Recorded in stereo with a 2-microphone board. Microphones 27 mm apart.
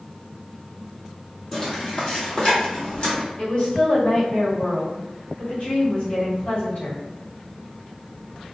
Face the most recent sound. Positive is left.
turn(degrees=55)  # may be behind; listen again after turning